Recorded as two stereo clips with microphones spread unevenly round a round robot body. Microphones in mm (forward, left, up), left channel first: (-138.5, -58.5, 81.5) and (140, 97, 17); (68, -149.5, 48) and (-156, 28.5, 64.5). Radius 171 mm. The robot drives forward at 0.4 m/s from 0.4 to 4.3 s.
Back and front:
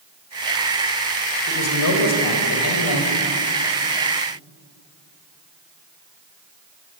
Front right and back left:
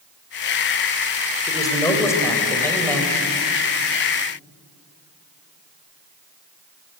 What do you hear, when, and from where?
1.5 s a man speaking: 115° right, 4 m; by 3.0 s 125° right, 4.5 m